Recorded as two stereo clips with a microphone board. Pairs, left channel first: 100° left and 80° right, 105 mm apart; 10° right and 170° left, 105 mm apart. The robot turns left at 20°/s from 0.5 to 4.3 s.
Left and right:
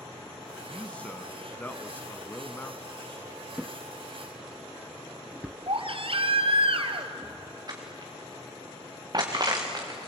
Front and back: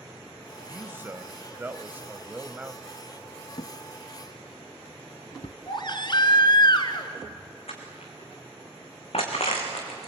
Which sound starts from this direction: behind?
A man speaking, at 0.7 s.